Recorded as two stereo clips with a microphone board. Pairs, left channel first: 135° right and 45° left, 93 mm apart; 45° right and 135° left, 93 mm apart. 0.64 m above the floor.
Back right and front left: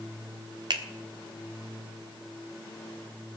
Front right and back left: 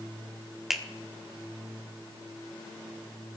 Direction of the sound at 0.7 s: 50° left.